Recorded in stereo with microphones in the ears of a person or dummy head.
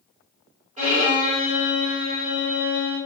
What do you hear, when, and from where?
0.8 s a violin: 30° right (ahead or behind), 1.7 m